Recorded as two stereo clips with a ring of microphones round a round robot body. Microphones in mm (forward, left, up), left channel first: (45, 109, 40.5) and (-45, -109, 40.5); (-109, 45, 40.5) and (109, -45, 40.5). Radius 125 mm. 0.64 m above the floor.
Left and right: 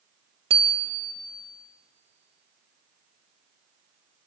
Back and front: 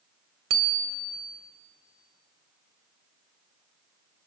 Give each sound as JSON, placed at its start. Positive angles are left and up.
{"t": 0.5, "sound": "a bicycle bell", "azimuth_deg": -45, "distance_m": 2.0}